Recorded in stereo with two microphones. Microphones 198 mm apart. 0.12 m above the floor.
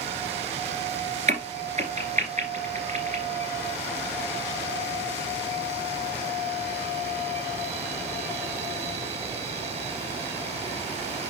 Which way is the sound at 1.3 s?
40° right (ahead or behind).